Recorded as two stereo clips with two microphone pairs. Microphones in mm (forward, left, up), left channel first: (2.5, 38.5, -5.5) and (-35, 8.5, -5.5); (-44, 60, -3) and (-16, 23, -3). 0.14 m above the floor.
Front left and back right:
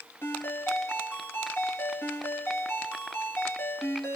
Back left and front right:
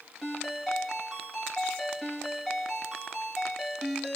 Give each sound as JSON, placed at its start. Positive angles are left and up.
{"t": 0.2, "sound": "a ringtone", "azimuth_deg": 50, "distance_m": 1.8}